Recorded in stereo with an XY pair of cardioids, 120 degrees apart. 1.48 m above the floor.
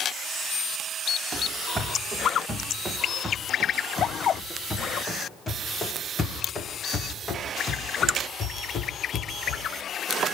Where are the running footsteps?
15° right, 5.5 m; by 9.7 s 50° left, 7 m.